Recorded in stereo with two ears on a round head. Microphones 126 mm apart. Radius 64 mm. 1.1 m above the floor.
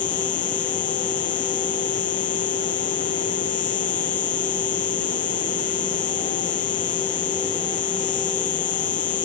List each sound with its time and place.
0.0 s an insect: 60° left (ahead or behind)